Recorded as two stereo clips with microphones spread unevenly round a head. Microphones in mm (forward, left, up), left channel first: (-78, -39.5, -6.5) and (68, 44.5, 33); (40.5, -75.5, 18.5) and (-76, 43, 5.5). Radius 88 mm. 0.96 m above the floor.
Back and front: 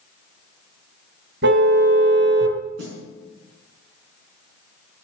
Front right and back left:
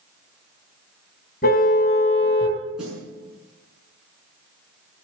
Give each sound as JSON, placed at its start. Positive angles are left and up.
{"t": 1.4, "sound": "a car horn", "azimuth_deg": 0, "distance_m": 3.0}
{"t": 2.8, "sound": "a snare drum", "azimuth_deg": 50, "distance_m": 6.5}